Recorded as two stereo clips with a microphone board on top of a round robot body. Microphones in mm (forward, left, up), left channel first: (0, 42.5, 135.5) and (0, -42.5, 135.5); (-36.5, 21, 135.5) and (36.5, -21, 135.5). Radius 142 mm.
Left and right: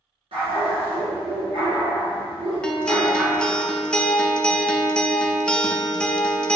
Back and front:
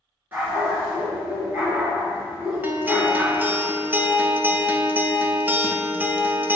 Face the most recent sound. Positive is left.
turn(degrees=20)